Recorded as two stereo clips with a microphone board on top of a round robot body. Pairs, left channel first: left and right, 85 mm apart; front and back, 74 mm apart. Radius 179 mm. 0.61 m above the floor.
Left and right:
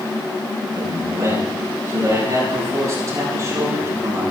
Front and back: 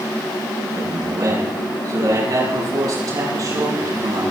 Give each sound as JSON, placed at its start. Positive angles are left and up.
{"t": 0.7, "sound": "a man speaking", "azimuth_deg": -145, "distance_m": 8.5}